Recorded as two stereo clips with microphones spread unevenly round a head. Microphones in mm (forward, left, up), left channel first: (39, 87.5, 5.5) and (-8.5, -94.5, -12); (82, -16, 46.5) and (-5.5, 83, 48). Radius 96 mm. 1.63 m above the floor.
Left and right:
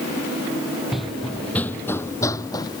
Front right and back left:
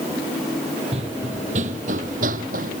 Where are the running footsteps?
160° left; by 2.8 s 135° left.